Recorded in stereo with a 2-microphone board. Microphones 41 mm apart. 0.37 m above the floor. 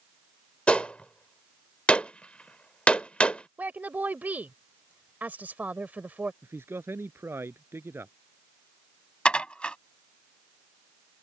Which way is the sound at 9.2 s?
25° left (ahead or behind).